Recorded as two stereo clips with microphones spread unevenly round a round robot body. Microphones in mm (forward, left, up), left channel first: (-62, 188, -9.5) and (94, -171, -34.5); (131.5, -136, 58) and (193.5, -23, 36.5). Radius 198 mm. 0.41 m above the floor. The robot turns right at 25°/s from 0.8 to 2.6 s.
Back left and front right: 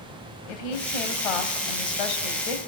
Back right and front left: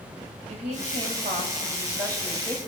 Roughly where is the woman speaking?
Left.